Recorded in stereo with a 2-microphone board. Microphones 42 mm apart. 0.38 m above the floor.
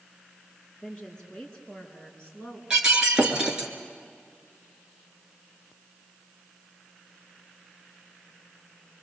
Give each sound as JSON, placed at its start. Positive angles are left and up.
{"t": 0.8, "sound": "a woman speaking", "side_deg": 20, "distance_m": 6.0}
{"t": 2.7, "sound": "breaking glass", "side_deg": -15, "distance_m": 3.0}